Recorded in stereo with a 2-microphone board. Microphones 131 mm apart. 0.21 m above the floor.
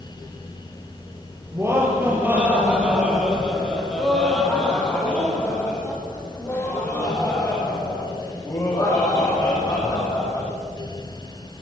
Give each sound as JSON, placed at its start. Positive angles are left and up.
{"t": 1.5, "sound": "laughter", "side_deg": -20, "distance_m": 5.5}